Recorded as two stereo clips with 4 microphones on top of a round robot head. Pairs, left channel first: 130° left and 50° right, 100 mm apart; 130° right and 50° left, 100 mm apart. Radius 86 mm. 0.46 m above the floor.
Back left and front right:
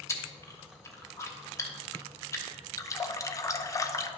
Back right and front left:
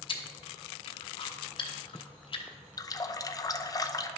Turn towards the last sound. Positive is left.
turn(degrees=-175)